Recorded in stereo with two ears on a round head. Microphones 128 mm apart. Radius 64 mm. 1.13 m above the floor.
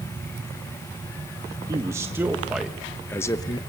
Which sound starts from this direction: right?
A man speaking, at 1.7 s.